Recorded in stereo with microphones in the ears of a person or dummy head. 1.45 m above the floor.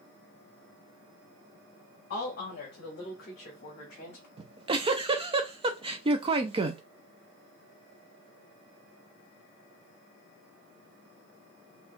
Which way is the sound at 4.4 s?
30° right (ahead or behind).